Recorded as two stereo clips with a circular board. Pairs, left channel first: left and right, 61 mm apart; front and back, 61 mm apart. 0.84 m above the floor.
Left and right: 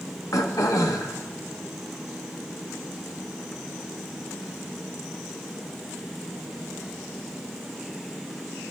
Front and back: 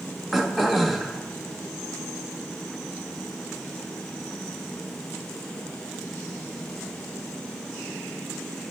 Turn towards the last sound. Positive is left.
turn(degrees=90)